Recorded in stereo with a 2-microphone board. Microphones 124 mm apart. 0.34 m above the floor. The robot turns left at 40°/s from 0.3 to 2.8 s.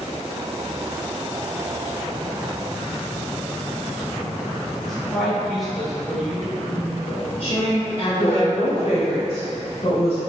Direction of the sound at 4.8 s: Centre (ahead or behind).